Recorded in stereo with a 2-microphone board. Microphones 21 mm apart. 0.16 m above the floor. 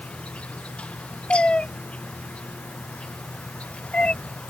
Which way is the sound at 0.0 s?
85° left.